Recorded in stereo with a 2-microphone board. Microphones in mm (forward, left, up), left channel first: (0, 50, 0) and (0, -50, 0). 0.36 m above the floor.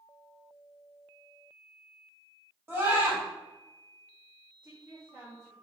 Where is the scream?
25° right (ahead or behind), 1.9 m.